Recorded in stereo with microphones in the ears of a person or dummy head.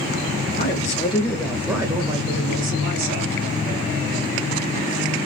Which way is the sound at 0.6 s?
50° left (ahead or behind).